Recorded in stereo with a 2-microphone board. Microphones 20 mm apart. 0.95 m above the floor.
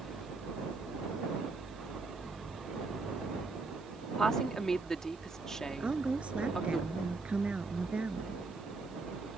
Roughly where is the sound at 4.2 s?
Left.